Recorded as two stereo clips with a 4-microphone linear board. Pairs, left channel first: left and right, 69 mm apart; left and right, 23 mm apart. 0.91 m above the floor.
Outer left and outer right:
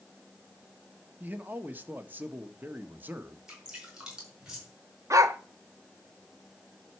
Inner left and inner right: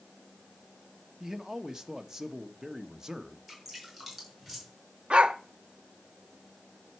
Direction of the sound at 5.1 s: 50° right (ahead or behind).